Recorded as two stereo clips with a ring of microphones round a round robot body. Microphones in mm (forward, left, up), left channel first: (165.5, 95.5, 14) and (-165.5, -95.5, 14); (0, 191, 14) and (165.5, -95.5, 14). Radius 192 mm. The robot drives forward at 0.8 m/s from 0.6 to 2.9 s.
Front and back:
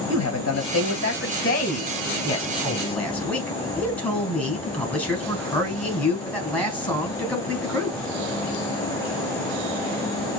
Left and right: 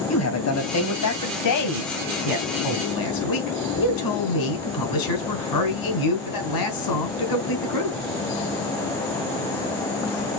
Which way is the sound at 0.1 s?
85° left.